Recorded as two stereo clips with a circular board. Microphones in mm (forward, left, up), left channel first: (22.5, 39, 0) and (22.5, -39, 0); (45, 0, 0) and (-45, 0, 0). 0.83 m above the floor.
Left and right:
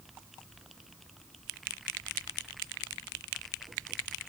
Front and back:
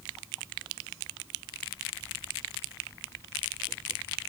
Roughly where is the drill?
I don't hear a drill.